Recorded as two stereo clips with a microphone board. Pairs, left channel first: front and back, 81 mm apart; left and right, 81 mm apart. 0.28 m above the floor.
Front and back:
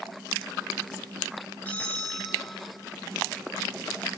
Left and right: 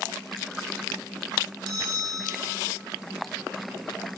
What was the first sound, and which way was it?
A bell, 70° right.